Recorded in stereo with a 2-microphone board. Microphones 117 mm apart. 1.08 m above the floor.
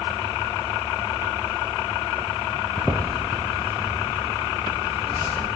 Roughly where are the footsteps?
Centre.